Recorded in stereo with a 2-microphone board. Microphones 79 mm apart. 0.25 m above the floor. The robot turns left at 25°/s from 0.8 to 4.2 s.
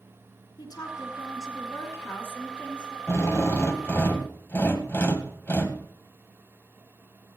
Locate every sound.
0.6 s a woman speaking: 70° left, 4 m; by 3.0 s 15° left, 4 m
3.1 s a drill: 35° left (ahead or behind), 1.7 m; by 5.8 s 30° left (ahead or behind), 1.7 m